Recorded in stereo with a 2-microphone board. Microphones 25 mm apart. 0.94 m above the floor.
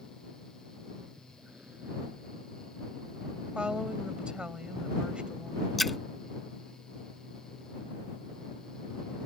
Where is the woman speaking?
45° right (ahead or behind).